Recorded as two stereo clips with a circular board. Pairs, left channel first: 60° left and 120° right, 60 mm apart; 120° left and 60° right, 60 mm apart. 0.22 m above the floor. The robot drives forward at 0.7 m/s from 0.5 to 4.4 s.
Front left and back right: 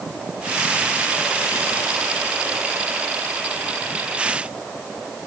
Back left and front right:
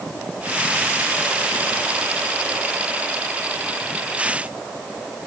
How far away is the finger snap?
No finger snap in this recording.